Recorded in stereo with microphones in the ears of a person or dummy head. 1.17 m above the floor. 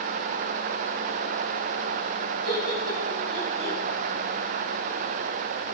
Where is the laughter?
25° right (ahead or behind), 8 m; by 3.8 s 30° right (ahead or behind), 7 m.